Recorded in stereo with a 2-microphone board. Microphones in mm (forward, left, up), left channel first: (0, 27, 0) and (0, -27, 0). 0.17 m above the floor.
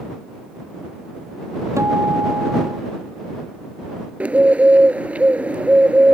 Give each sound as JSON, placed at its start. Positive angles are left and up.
{"t": 1.8, "sound": "a guitar", "side_deg": -70}
{"t": 4.2, "sound": "a bird", "side_deg": -25}